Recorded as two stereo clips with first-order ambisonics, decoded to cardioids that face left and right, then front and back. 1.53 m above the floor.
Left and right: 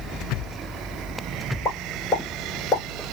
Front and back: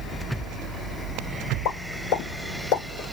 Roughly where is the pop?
Ahead left.